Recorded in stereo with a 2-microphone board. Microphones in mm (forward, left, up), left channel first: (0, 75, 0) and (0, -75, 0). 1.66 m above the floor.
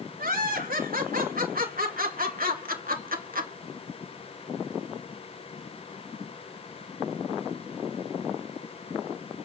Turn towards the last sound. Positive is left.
turn(degrees=-70)  # may be behind; listen again after turning